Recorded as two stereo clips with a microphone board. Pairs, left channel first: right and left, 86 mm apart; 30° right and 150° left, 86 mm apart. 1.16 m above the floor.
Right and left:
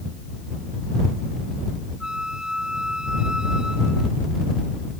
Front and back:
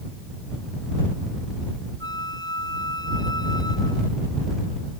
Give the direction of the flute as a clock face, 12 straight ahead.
12 o'clock.